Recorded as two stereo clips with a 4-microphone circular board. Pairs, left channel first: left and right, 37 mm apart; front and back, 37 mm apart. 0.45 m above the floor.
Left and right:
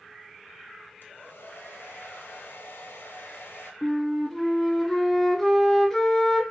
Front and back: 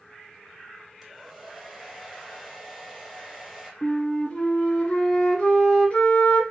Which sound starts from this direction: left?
A hair dryer, at 1.0 s.